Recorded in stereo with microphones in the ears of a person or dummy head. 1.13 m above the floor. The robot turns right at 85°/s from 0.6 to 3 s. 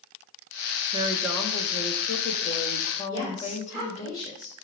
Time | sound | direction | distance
0.9 | a woman speaking | 30° right | 1.3 m
3.1 | a woman speaking | 25° right (ahead or behind) | 5 m